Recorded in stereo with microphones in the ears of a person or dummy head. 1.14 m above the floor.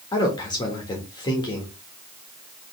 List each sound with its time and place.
0.1 s a man speaking: 25° left (ahead or behind), 1.7 m